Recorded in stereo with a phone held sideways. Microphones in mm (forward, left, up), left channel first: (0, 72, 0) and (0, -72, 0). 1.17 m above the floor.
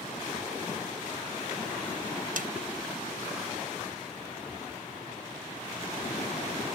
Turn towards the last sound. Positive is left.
turn(degrees=-75)  # may be behind; listen again after turning